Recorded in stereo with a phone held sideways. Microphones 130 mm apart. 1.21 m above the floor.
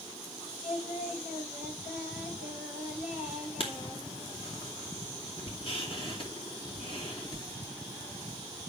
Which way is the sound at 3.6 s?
45° left (ahead or behind).